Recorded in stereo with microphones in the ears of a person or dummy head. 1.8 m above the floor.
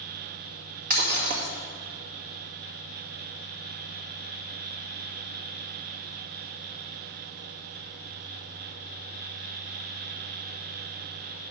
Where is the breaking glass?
50° right (ahead or behind), 1.9 m.